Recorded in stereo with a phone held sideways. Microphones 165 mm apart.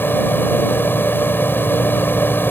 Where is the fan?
15° left (ahead or behind).